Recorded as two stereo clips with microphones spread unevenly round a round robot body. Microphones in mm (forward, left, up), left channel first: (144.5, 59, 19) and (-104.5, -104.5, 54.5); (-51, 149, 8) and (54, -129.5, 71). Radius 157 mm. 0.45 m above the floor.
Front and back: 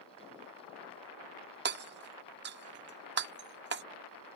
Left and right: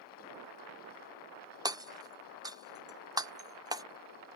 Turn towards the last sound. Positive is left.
turn(degrees=-160)